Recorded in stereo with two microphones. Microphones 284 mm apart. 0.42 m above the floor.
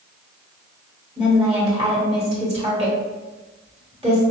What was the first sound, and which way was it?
A woman speaking, 20° right (ahead or behind).